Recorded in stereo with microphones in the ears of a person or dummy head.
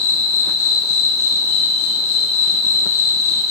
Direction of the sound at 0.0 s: 15° right (ahead or behind).